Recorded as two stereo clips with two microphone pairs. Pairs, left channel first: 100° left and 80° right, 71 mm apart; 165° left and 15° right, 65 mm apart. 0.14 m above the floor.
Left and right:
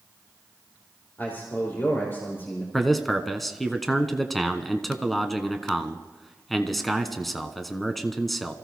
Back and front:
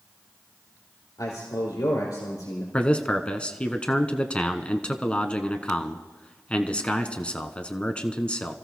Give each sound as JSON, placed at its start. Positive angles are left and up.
{"t": 1.2, "sound": "a man speaking", "azimuth_deg": 155, "distance_m": 4.0}
{"t": 2.7, "sound": "a man speaking", "azimuth_deg": -175, "distance_m": 1.0}